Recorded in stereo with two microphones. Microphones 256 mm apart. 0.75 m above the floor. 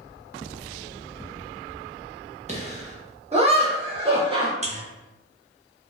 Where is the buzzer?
25° right (ahead or behind), 0.5 m.